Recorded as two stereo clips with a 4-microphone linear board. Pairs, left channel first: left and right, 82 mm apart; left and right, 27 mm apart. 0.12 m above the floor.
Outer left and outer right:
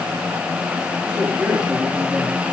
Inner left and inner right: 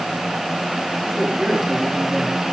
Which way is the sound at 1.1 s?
10° right (ahead or behind).